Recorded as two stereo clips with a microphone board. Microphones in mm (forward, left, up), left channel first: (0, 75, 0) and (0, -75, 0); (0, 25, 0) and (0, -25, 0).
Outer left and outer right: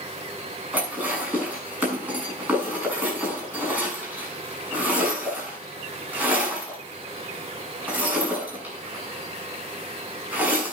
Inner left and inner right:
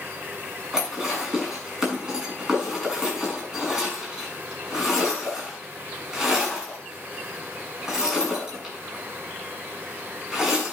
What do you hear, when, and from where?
0.7 s dishes clattering: 10° right (ahead or behind), 7 m